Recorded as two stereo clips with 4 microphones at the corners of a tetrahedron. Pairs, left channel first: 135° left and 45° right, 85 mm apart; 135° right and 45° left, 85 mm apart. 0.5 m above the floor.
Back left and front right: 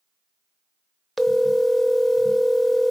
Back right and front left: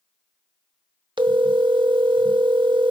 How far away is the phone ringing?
About 0.8 m.